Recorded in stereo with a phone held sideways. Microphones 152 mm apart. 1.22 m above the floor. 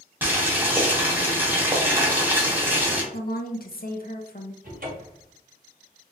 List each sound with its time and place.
0.2 s boiling: 10° right (ahead or behind), 1.0 m
3.1 s a woman speaking: 65° left (ahead or behind), 0.6 m
4.6 s a cupboard door: 60° right (ahead or behind), 1.0 m